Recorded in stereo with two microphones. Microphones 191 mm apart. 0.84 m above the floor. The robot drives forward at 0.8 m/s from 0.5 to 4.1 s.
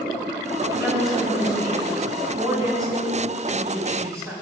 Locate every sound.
0.7 s a woman speaking: 25° right (ahead or behind), 4.5 m; by 4.4 s 15° right (ahead or behind), 7 m